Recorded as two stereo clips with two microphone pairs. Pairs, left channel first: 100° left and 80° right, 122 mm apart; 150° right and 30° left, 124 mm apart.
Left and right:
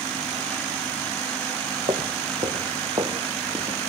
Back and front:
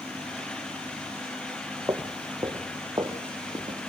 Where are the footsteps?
40° right, 3 m; by 3.9 s 25° right, 1.9 m.